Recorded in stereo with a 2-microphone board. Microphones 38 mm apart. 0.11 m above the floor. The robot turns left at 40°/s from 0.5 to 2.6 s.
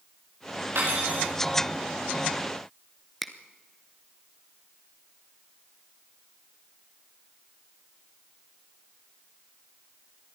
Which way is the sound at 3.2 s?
5° left (ahead or behind).